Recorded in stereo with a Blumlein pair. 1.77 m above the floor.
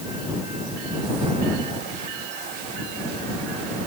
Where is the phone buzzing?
No phone buzzing in this recording.